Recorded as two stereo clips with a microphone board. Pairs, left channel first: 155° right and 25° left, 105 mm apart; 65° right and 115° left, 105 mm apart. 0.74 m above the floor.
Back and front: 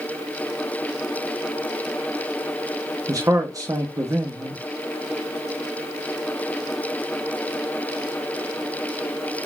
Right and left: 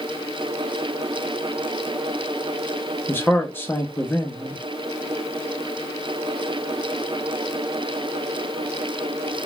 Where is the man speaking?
10° right, 0.7 m.